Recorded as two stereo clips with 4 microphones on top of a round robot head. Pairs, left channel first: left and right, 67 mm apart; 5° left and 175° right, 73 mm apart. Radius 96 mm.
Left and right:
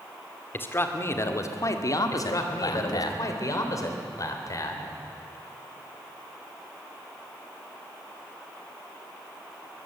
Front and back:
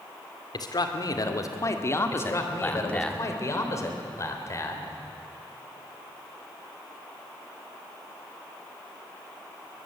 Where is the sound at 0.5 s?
30° left, 2.5 m; by 3.1 s 85° left, 2 m.